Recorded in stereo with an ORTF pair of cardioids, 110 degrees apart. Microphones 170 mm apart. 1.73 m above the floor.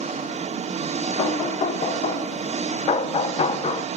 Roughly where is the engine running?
Ahead right.